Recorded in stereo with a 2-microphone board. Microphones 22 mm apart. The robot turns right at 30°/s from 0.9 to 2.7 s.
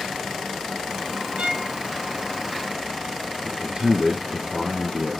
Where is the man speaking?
50° right (ahead or behind), 1.9 m.